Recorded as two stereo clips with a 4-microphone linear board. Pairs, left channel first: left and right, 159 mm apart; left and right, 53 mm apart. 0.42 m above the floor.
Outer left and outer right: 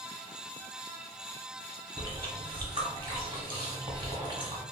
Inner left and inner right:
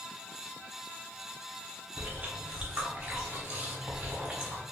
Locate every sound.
2.0 s chewing: 30° right (ahead or behind), 0.8 m